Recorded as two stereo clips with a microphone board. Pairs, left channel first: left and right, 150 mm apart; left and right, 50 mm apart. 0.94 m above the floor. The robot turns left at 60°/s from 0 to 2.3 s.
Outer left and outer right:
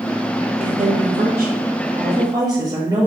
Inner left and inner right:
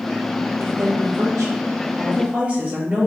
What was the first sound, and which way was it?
A woman speaking, 50° right.